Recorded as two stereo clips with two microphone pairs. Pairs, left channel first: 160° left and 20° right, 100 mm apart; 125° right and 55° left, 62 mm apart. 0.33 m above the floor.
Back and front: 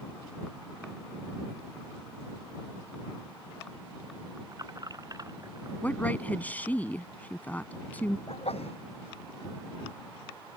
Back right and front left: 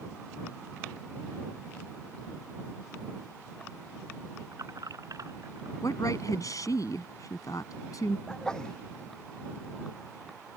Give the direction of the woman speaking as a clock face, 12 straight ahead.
4 o'clock.